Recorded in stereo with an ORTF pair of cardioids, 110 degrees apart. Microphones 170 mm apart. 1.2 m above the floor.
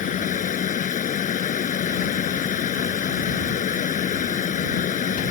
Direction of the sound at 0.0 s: 50° left.